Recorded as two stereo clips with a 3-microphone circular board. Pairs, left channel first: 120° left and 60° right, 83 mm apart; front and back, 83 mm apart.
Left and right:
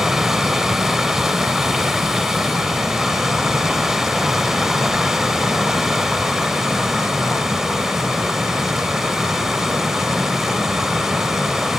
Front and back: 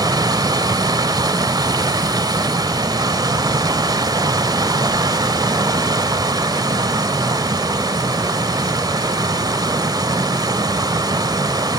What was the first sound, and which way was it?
Running water, 145° right.